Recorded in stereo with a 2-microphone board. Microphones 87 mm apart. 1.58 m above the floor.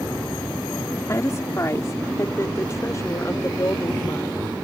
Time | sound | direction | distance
1.1 | a woman speaking | 35° left (ahead or behind) | ?